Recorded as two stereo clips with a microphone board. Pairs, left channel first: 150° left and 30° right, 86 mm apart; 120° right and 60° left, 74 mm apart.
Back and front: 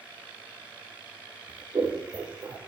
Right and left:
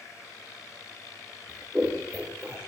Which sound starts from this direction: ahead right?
Scissors, at 1.5 s.